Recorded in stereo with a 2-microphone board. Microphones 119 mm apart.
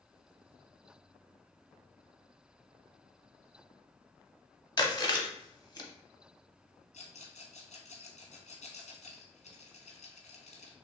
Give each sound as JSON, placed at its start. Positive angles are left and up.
{"t": 4.8, "sound": "chewing", "side_deg": 35, "distance_m": 0.8}
{"t": 6.9, "sound": "a rattle", "side_deg": 75, "distance_m": 1.3}